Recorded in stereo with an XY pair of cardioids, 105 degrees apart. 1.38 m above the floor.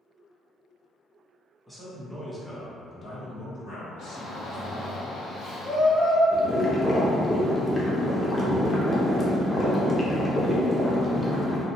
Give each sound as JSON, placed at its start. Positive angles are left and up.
{"t": 1.7, "sound": "a man speaking", "azimuth_deg": 0, "distance_m": 1.0}
{"t": 4.0, "sound": "a shout", "azimuth_deg": 65, "distance_m": 0.9}
{"t": 6.3, "sound": "boiling", "azimuth_deg": 20, "distance_m": 0.7}